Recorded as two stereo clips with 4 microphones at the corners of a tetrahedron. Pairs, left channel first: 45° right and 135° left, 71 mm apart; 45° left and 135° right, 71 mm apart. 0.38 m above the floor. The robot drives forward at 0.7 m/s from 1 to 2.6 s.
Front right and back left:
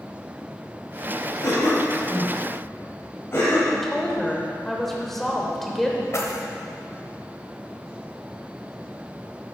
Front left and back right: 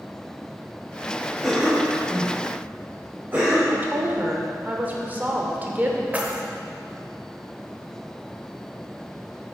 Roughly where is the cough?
Ahead right.